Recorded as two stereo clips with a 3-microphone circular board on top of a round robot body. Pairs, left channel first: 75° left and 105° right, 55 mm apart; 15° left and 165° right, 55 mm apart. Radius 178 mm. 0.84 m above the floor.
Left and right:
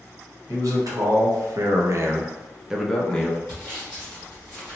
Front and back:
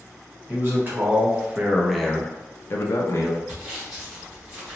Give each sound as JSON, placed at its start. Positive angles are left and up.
{"t": 0.5, "sound": "a man speaking", "azimuth_deg": -115, "distance_m": 1.2}
{"t": 3.5, "sound": "sawing", "azimuth_deg": 160, "distance_m": 0.7}